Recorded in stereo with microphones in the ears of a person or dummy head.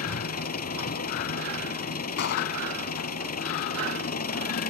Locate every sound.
0.0 s an engine running: 50° left (ahead or behind)
2.2 s a gunshot: 60° left (ahead or behind)